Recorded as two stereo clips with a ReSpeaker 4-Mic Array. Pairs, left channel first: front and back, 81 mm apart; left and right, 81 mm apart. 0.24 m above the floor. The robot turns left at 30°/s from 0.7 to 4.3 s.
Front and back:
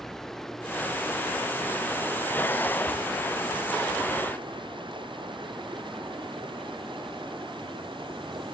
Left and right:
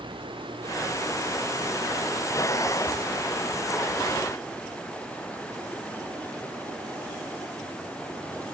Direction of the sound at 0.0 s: 85° right.